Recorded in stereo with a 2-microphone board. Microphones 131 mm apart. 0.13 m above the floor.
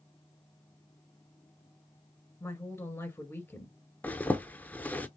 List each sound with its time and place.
2.4 s a woman speaking: 20° left (ahead or behind), 1.4 m
4.0 s a zipper: 15° left (ahead or behind), 0.5 m